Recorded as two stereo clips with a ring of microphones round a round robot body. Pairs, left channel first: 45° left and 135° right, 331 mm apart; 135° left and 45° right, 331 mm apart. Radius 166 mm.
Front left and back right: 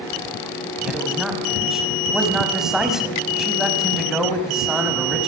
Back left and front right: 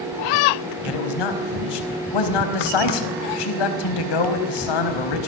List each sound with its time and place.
0.8 s a man speaking: 135° left, 4.5 m